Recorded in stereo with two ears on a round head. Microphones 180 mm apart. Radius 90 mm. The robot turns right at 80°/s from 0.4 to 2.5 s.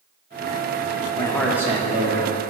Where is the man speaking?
155° left, 0.9 m; by 2.3 s 110° right, 0.9 m.